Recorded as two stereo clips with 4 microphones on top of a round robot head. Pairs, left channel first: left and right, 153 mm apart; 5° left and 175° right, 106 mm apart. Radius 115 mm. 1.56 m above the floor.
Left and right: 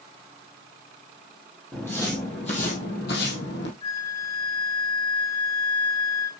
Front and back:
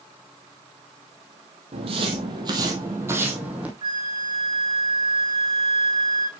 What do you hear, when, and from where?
1.7 s footsteps: 175° left, 2.5 m; by 3.7 s 110° left, 3 m
3.8 s a flute: 150° left, 2.5 m